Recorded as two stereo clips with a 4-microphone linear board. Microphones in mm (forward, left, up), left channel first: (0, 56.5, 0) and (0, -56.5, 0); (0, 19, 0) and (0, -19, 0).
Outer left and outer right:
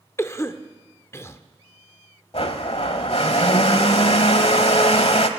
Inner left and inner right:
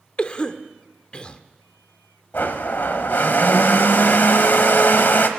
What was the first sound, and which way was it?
A cough, 25° left (ahead or behind).